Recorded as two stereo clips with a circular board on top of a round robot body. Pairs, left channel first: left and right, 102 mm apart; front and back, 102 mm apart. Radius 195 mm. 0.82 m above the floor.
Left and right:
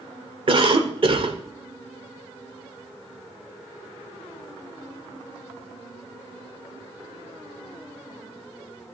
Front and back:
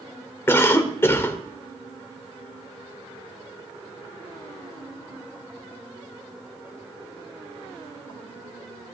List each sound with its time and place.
0.5 s a cough: 65° right, 1.9 m